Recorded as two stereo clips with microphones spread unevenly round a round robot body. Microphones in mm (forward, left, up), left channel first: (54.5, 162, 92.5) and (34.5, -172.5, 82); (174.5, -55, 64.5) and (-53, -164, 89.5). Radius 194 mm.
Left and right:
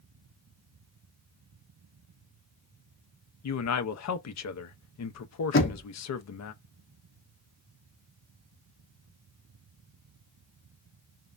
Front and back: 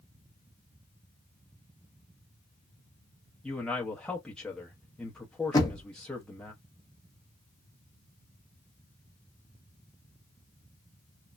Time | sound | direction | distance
3.4 | a man speaking | 105° left | 0.6 m
5.5 | knocking | 80° left | 0.8 m